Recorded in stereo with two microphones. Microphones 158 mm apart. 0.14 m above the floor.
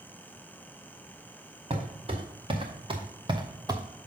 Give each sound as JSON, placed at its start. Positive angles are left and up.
{"t": 1.7, "sound": "footsteps", "side_deg": -40, "distance_m": 2.0}